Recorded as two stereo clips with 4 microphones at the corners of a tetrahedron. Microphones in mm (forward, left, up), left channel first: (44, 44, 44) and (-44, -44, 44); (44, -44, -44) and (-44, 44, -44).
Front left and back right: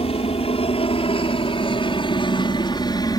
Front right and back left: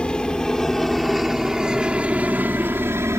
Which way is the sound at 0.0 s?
35° left.